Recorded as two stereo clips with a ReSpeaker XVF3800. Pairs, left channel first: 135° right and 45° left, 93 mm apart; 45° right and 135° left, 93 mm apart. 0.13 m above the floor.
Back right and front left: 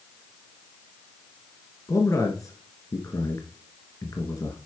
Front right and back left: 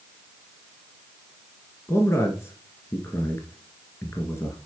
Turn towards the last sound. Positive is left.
turn(degrees=-95)